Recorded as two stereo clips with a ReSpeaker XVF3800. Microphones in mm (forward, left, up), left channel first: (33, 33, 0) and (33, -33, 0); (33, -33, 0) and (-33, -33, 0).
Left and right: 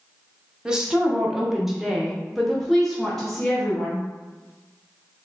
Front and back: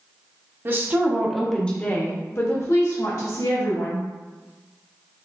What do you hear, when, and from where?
0.7 s a woman speaking: 160° right, 0.8 m; by 4.0 s 5° left, 1.7 m